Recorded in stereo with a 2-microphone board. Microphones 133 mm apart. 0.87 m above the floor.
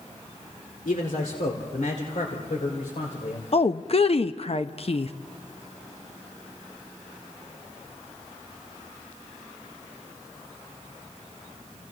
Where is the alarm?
No alarm in this recording.